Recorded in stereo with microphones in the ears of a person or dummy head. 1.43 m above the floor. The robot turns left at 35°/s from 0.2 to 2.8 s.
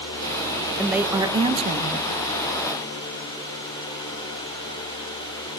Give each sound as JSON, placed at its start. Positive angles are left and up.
{"t": 0.8, "sound": "a woman speaking", "azimuth_deg": -5, "distance_m": 1.1}